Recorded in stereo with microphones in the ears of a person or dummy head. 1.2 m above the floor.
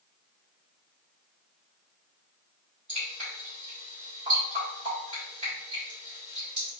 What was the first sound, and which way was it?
Dripping, 45° right (ahead or behind).